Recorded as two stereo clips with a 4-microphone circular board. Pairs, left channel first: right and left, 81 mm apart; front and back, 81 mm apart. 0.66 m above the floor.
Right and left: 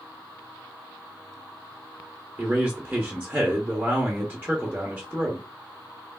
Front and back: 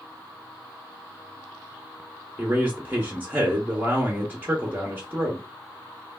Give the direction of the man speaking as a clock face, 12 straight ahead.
7 o'clock.